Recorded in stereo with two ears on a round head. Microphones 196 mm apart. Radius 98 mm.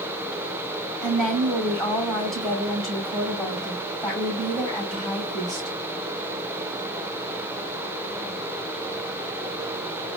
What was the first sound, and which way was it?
A woman speaking, centre (ahead or behind).